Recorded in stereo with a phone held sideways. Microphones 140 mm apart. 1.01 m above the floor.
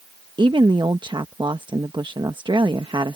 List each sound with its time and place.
0.4 s a woman speaking: 35° right (ahead or behind)